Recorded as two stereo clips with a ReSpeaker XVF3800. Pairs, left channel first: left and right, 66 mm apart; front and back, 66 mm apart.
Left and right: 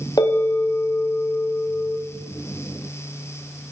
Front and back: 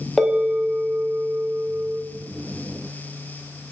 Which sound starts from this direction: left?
A bell, at 0.2 s.